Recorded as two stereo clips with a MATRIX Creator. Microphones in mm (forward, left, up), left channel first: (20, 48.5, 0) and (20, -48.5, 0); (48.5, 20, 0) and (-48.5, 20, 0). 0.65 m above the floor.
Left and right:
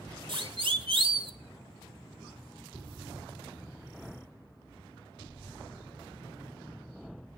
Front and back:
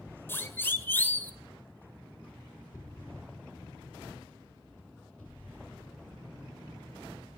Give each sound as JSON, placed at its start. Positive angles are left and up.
{"t": 0.3, "sound": "a siren", "azimuth_deg": -65, "distance_m": 2.0}